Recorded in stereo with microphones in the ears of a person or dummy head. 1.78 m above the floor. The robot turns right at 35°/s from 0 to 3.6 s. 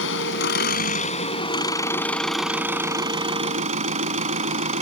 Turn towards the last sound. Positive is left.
turn(degrees=-135)